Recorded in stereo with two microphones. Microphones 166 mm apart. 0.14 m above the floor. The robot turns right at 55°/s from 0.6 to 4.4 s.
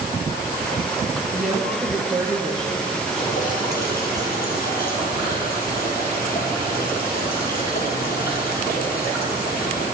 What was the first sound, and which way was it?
A woman speaking, 65° right.